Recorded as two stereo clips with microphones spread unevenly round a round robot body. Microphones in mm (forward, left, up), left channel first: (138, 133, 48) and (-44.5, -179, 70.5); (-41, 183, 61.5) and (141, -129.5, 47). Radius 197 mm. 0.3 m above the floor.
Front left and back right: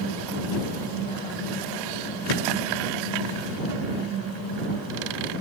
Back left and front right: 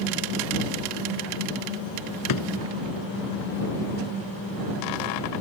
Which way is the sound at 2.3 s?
85° left.